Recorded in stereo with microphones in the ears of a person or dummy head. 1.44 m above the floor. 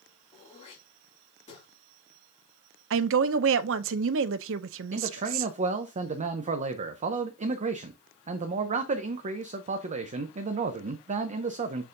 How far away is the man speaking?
About 0.6 m.